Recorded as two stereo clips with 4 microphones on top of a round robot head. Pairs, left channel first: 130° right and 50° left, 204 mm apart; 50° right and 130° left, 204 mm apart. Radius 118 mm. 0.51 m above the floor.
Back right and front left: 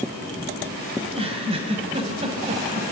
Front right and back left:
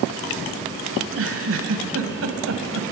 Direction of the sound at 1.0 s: 115° left.